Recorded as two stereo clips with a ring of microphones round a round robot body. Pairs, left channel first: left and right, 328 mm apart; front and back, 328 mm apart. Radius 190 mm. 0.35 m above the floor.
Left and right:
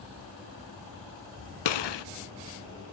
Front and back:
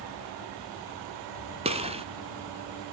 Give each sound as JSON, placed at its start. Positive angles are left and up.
{"t": 1.6, "sound": "a gunshot", "azimuth_deg": 105, "distance_m": 0.9}